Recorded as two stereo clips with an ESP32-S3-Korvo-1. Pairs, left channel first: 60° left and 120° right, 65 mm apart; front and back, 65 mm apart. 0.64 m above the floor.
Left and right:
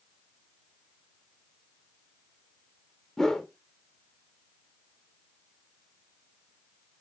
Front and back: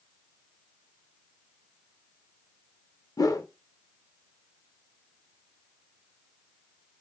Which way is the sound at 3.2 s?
25° right.